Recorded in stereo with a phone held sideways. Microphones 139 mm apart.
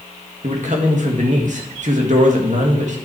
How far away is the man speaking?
About 1.9 m.